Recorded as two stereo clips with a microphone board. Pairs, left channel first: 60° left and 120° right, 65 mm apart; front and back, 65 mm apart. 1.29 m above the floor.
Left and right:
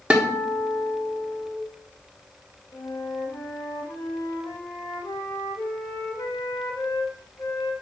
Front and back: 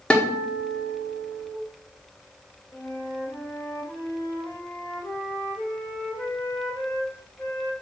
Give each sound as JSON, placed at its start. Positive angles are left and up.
{"t": 0.1, "sound": "a guitar", "azimuth_deg": -60, "distance_m": 1.0}
{"t": 2.7, "sound": "a flute", "azimuth_deg": 55, "distance_m": 1.4}